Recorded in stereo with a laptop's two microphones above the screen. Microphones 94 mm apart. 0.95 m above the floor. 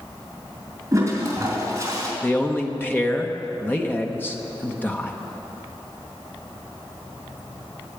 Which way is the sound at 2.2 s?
20° left (ahead or behind).